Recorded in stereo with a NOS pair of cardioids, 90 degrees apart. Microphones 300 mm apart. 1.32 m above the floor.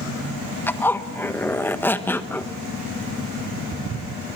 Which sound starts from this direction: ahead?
A zipper, at 0.7 s.